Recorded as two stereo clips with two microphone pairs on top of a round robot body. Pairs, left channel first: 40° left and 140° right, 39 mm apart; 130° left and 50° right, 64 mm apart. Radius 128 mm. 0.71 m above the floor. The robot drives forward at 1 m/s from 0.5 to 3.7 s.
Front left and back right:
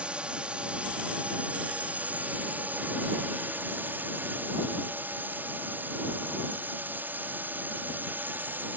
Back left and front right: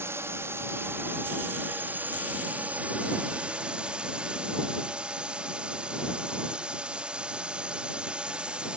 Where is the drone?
80° right; by 8.8 s 120° right.